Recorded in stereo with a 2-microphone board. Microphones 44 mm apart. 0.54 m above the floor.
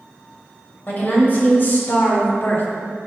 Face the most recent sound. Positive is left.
turn(degrees=45)  # may be behind; listen again after turning